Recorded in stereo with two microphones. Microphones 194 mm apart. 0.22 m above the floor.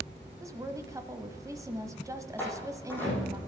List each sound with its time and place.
0.4 s a woman speaking: 15° right (ahead or behind), 1.0 m
2.4 s a door slam: 10° left (ahead or behind), 6 m